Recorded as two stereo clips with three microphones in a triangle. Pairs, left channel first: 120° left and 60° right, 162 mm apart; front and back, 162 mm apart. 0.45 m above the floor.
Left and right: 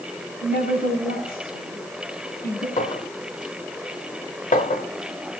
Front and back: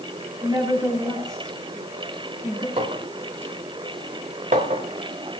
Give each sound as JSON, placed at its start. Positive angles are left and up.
{"t": 0.4, "sound": "a woman speaking", "azimuth_deg": 110, "distance_m": 3.0}
{"t": 2.8, "sound": "a clink", "azimuth_deg": 145, "distance_m": 1.0}